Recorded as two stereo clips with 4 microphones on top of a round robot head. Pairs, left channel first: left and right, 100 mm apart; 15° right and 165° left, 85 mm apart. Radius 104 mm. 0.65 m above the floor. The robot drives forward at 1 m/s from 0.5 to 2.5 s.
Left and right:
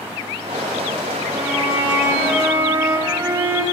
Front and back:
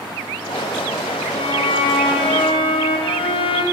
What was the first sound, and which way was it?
A violin, 10° right.